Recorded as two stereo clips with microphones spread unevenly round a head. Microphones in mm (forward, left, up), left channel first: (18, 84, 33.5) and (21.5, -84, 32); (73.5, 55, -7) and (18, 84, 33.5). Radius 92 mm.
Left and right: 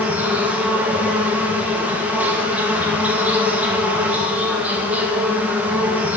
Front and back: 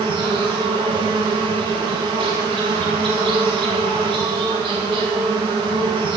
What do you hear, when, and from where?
0.0 s an insect: 170° right, 1.4 m